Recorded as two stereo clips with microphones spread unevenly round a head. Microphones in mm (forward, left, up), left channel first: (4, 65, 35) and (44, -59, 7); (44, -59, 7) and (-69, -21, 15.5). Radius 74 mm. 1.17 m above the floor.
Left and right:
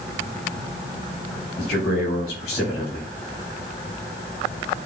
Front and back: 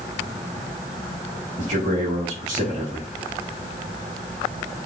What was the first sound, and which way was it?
A man speaking, 115° left.